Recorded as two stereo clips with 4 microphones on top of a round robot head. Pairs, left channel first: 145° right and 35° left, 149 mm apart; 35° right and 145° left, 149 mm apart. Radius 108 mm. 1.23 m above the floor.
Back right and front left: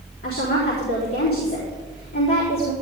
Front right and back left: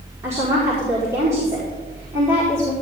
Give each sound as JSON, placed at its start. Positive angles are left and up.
{"t": 0.2, "sound": "a woman speaking", "azimuth_deg": -140, "distance_m": 4.0}